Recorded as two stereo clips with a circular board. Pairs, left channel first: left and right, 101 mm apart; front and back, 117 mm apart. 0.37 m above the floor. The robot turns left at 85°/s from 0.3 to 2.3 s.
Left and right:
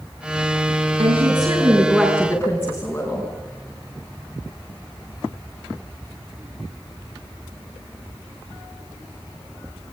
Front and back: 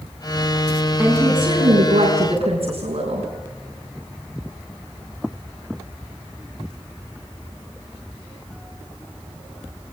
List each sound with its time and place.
1.0 s a woman speaking: 90° right, 5 m; by 3.3 s 160° left, 5 m